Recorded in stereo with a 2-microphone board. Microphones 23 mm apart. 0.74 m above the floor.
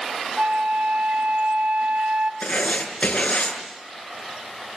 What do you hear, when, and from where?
0.4 s a flute: 75° right (ahead or behind), 1.1 m
2.4 s writing: 70° left (ahead or behind), 6 m